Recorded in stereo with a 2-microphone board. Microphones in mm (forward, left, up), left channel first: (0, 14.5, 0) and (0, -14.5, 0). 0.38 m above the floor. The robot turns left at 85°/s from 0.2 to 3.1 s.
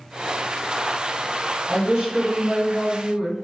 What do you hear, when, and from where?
1.7 s a woman speaking: 15° right, 1.8 m; by 3.3 s 135° right, 1.8 m